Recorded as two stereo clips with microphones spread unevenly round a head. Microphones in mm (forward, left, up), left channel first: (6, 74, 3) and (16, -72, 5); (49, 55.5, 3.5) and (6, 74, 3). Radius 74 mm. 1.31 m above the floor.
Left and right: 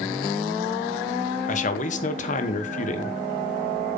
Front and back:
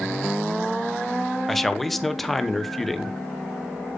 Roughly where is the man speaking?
Ahead left.